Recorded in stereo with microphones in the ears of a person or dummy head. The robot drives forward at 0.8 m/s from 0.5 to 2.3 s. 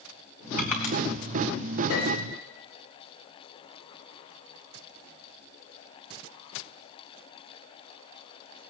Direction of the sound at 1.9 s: 80° left.